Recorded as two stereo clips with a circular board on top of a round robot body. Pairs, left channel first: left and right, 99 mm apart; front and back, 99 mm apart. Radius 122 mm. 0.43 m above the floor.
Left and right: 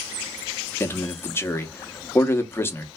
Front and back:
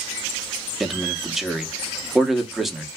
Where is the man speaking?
95° left, 1.1 m.